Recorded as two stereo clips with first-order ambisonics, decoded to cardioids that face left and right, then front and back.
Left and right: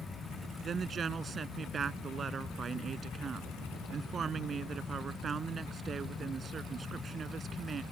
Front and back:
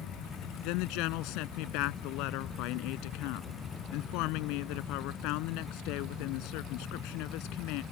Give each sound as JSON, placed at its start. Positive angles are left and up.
{"t": 0.6, "sound": "a woman speaking", "azimuth_deg": -25}